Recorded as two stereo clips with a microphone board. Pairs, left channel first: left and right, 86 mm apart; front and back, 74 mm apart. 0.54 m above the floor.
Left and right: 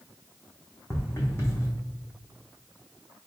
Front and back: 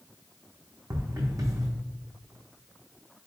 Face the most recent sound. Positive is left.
turn(degrees=150)